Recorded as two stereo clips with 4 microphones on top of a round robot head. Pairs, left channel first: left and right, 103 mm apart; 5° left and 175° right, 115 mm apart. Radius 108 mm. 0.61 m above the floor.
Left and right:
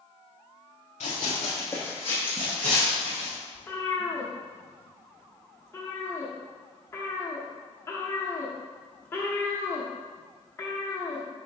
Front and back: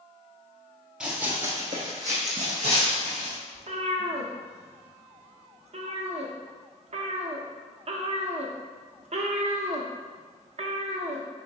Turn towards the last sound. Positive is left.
turn(degrees=160)